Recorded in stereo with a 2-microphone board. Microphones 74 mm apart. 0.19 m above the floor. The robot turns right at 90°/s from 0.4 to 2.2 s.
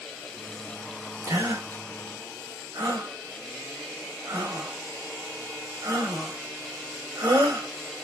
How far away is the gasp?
About 2.5 m.